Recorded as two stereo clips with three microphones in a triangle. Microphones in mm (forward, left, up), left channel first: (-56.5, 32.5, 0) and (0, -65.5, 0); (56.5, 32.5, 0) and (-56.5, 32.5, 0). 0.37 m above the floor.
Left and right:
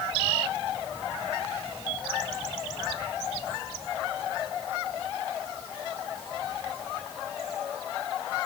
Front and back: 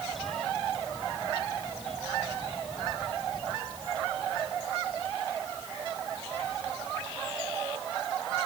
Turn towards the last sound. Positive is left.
No sound to turn to.